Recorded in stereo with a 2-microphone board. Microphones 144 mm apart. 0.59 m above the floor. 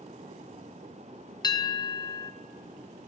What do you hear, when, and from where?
1.4 s a bell: 25° left (ahead or behind), 0.6 m